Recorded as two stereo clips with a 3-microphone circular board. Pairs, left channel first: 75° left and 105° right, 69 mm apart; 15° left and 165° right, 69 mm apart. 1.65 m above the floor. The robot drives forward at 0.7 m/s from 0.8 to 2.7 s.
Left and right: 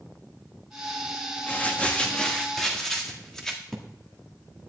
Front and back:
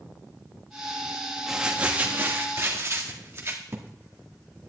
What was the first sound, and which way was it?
Crumpling, 120° left.